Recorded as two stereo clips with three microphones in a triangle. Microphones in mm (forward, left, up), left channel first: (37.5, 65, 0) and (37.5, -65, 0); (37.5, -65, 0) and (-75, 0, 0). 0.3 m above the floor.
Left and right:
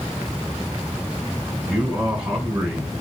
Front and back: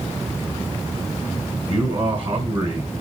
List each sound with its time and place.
1.7 s a man speaking: 170° right, 3 m